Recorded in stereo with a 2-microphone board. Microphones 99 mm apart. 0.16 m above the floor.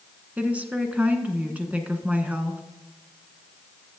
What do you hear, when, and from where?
0.4 s a woman speaking: 15° right (ahead or behind), 1.4 m